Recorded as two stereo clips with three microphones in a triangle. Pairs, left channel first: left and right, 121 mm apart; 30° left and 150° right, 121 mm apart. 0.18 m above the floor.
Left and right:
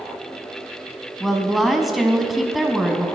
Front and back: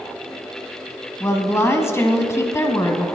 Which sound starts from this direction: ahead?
A woman speaking, at 1.2 s.